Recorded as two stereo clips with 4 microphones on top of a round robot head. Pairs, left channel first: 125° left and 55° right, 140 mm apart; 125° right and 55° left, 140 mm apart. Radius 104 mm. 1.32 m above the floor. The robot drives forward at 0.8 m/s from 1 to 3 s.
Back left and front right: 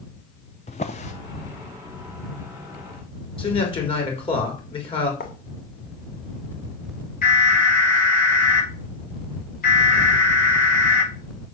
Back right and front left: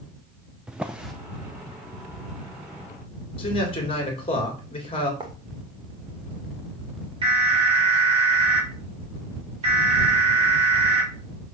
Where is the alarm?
105° left, 5 m.